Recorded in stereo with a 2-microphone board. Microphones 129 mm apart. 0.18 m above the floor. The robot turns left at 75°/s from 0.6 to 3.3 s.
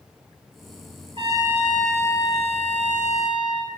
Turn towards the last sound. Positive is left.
turn(degrees=70)